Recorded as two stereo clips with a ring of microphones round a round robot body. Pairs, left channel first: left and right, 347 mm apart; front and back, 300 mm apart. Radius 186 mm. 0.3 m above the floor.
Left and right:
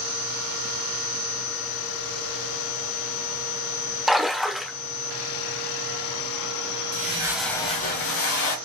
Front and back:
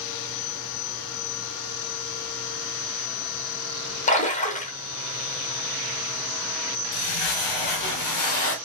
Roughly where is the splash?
Ahead.